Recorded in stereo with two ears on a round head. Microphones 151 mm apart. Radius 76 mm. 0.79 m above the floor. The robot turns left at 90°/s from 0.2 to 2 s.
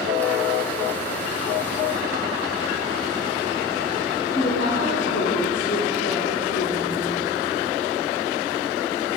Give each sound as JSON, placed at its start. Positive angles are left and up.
{"t": 4.3, "sound": "a woman speaking", "side_deg": 75, "distance_m": 2.5}